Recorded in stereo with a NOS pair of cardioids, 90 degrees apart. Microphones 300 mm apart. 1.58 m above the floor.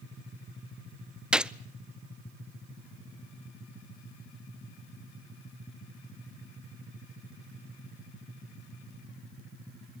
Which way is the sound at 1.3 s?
5° right.